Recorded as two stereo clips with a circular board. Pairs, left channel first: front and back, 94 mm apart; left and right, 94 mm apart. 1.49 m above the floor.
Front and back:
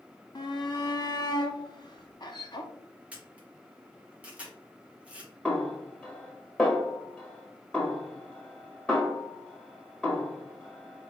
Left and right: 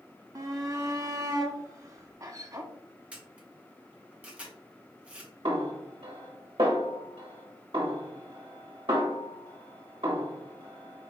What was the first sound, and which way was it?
A shout, 40° right.